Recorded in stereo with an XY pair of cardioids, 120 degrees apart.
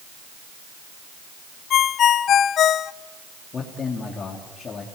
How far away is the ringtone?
About 0.6 m.